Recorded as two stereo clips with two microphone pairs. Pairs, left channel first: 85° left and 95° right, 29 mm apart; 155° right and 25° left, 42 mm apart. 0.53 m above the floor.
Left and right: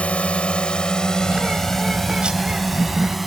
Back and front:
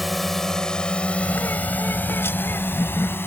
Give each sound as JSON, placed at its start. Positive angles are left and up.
{"t": 0.0, "sound": "a drone", "azimuth_deg": 115}
{"t": 1.2, "sound": "a bird", "azimuth_deg": -150}